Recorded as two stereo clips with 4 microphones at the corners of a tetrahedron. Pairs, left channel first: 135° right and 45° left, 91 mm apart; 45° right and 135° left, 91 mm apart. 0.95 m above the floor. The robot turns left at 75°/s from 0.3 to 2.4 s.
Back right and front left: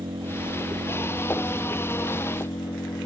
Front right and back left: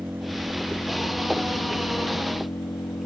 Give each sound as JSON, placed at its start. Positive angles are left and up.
{"t": 0.0, "sound": "an engine running", "azimuth_deg": 65}